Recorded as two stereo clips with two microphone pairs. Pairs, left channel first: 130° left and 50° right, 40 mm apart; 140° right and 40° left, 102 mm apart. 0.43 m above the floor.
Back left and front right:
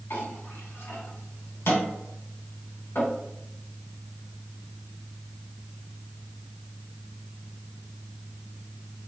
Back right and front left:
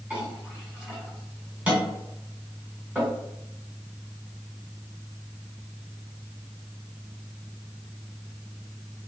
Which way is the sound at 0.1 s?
115° left.